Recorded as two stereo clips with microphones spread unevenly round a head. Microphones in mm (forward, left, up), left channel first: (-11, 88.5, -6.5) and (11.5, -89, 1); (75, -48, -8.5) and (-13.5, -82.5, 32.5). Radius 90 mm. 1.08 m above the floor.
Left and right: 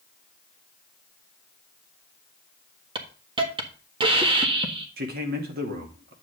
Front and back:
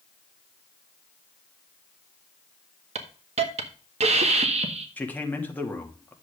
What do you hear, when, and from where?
3.0 s a hiss: 145° right, 1.6 m
5.0 s a man speaking: 45° right, 2.5 m